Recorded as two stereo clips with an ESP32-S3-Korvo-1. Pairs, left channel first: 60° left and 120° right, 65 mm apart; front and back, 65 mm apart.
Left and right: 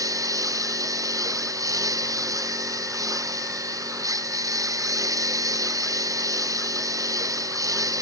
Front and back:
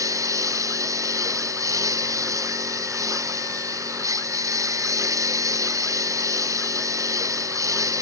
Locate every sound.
0.0 s a lawn mower: 145° right